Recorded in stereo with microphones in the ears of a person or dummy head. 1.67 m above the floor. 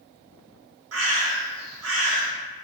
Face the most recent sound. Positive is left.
turn(degrees=-80)